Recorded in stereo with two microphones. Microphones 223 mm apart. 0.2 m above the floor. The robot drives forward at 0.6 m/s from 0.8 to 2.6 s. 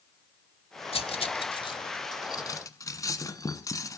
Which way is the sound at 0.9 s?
25° left (ahead or behind).